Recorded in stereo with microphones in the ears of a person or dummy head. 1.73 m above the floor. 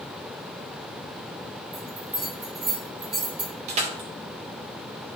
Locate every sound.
1.7 s a bell: 35° right (ahead or behind), 3 m
3.7 s crushing: 40° right (ahead or behind), 1.7 m